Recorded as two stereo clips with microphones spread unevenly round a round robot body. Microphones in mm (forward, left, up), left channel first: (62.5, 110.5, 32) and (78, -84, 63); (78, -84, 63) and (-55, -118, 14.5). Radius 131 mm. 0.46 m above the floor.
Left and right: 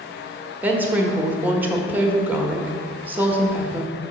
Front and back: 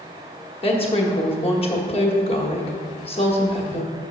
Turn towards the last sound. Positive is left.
turn(degrees=10)